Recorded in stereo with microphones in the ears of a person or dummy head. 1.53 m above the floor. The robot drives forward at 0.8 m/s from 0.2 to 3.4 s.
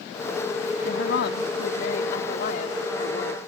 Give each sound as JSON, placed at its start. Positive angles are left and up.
{"t": 0.8, "sound": "a woman speaking", "side_deg": 80}